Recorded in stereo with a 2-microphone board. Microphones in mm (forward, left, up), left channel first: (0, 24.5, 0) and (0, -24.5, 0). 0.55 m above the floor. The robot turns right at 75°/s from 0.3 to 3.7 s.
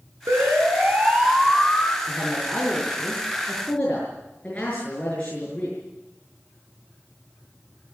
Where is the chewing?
No chewing in this recording.